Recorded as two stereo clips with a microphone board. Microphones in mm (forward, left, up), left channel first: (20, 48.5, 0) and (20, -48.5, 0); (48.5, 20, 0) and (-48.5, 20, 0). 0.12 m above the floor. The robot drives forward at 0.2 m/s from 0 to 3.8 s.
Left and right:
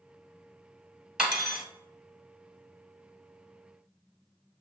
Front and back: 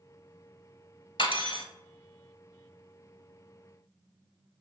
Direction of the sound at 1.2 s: 10° right.